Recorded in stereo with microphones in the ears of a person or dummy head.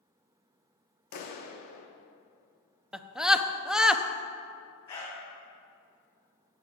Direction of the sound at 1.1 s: 50° left (ahead or behind).